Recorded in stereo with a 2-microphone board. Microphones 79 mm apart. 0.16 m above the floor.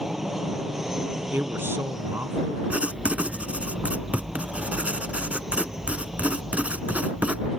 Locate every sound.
0.0 s an aircraft: 5° right (ahead or behind)
1.3 s a man speaking: 35° right (ahead or behind)
2.7 s writing: 20° right (ahead or behind)